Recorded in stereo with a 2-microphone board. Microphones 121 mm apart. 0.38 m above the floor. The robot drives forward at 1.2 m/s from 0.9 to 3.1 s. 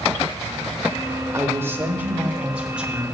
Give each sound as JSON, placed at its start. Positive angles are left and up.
{"t": 1.3, "sound": "a man speaking", "side_deg": -25, "distance_m": 0.9}